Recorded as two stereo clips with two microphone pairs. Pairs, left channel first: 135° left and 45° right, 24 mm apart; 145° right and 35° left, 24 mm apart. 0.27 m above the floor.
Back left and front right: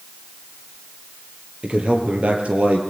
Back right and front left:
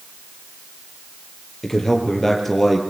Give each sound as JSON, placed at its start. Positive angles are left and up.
{"t": 1.6, "sound": "a man speaking", "azimuth_deg": -70, "distance_m": 7.0}